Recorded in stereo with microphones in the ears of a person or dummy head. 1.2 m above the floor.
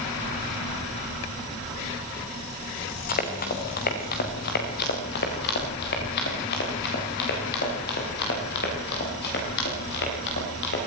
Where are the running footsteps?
50° left (ahead or behind), 4 m; by 10.9 s 60° left (ahead or behind), 11.5 m.